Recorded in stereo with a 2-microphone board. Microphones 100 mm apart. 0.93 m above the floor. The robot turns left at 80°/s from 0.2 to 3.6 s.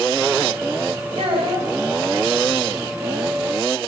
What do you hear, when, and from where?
1.2 s a child speaking: 105° right, 4 m; by 1.7 s 145° right, 4 m